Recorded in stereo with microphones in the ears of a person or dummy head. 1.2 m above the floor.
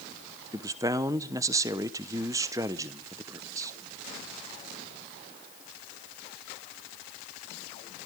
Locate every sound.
0.5 s a man speaking: 15° right (ahead or behind), 0.8 m